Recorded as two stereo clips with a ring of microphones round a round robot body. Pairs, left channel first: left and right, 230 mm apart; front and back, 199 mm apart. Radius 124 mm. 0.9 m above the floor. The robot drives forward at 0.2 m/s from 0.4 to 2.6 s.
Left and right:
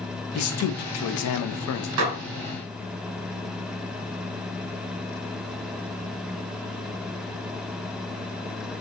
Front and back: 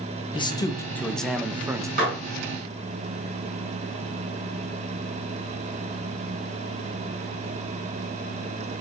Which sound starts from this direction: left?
A man speaking, at 0.3 s.